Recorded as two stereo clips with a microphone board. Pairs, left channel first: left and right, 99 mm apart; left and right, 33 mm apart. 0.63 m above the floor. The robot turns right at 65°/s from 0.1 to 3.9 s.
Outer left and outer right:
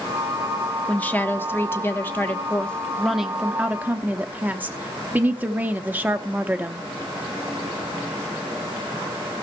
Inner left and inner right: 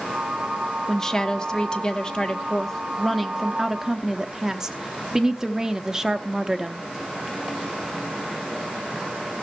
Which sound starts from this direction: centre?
A woman speaking, at 0.9 s.